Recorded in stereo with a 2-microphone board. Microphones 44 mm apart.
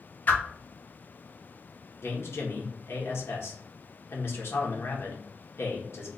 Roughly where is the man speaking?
Left.